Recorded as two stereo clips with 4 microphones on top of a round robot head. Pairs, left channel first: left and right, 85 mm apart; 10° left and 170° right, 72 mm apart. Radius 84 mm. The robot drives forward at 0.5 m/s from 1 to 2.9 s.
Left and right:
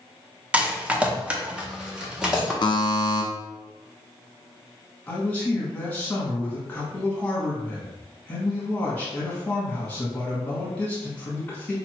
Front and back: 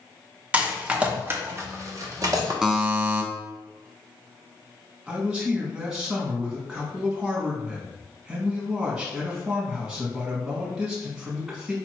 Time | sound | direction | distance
0.5 | a rattle | 135° right | 0.7 m
2.6 | a buzzer | 110° left | 0.8 m
5.1 | a man speaking | 130° left | 1.3 m